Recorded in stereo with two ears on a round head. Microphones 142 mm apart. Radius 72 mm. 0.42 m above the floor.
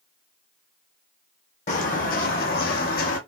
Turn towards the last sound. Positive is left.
turn(degrees=60)  # may be behind; listen again after turning